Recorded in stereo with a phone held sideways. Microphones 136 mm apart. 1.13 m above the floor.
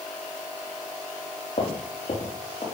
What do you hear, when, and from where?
1.6 s footsteps: 50° left (ahead or behind), 3 m; by 2.6 s 40° left (ahead or behind), 4.5 m